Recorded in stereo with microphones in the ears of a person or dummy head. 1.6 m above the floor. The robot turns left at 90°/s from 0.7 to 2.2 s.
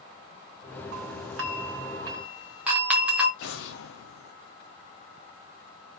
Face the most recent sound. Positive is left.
turn(degrees=75)  # may be behind; listen again after turning